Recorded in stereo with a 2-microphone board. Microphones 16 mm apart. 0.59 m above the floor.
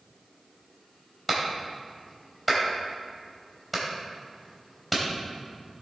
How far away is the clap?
About 2.5 m.